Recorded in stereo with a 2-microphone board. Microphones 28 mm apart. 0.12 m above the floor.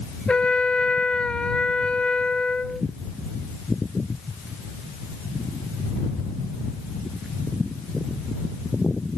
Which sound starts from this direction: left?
A trumpet, at 0.3 s.